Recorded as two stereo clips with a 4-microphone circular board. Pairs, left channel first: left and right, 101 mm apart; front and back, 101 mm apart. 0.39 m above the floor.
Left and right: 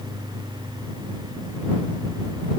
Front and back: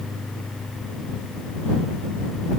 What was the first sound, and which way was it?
Only background noise.